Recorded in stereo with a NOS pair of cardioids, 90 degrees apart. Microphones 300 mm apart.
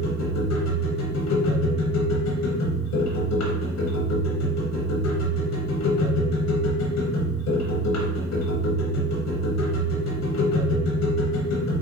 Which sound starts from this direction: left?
A machine running, at 0.0 s.